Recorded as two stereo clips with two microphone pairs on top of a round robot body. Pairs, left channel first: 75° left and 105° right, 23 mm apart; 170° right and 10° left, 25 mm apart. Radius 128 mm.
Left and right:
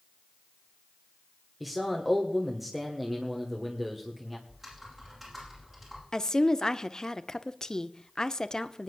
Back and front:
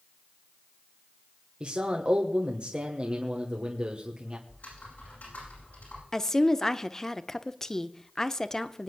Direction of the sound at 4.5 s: 170° right.